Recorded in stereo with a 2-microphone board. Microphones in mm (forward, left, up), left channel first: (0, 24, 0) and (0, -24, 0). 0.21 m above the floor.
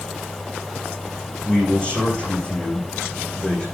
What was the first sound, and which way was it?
A man speaking, 20° left (ahead or behind).